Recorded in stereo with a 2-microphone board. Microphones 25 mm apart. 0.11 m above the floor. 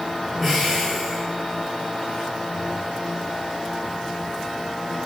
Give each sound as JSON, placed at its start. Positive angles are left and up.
{"t": 0.4, "sound": "breathing", "side_deg": -10, "distance_m": 6.0}